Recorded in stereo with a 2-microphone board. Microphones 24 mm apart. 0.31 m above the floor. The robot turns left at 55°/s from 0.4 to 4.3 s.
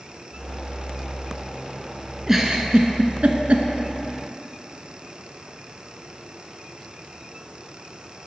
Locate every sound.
2.3 s a giggle: 15° right (ahead or behind), 0.5 m; by 3.7 s 80° right, 0.5 m